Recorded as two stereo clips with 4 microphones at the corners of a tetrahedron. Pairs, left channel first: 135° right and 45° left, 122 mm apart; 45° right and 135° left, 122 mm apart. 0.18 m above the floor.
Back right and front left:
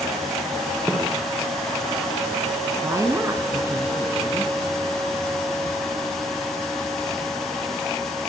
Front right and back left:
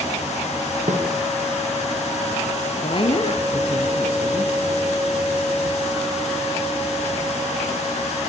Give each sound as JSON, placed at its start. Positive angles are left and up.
{"t": 0.9, "sound": "a snare drum", "azimuth_deg": 125, "distance_m": 6.0}
{"t": 2.8, "sound": "a woman speaking", "azimuth_deg": -15, "distance_m": 3.0}